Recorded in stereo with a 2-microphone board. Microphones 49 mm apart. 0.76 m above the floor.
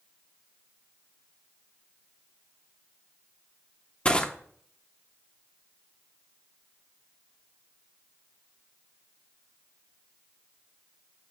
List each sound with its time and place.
4.0 s crushing: 25° left (ahead or behind), 1.1 m